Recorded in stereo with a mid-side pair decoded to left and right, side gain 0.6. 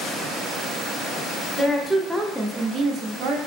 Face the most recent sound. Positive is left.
turn(degrees=-80)